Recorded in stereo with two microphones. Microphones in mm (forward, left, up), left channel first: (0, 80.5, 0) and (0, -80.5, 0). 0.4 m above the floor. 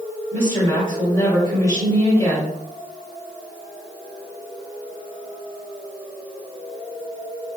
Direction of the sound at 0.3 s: 20° left (ahead or behind).